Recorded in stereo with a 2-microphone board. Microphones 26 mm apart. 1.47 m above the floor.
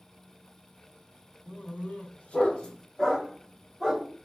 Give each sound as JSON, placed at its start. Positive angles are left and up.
{"t": 1.5, "sound": "a dog barking", "side_deg": 60, "distance_m": 1.7}